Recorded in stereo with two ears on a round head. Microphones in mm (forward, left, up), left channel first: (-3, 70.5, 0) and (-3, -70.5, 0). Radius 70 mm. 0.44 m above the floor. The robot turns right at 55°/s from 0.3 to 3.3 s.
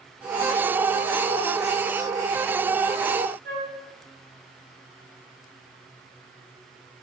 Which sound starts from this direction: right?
A flute, at 3.5 s.